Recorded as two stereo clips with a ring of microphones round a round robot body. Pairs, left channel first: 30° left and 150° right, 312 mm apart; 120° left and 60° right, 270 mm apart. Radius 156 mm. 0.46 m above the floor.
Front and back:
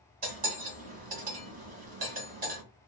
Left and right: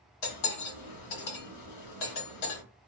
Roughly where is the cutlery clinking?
Behind left.